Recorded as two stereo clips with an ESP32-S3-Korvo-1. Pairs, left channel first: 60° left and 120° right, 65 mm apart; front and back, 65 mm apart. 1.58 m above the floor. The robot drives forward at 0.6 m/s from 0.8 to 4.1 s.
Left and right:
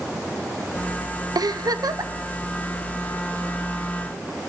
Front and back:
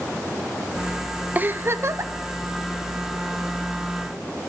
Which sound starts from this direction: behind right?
A giggle, at 1.4 s.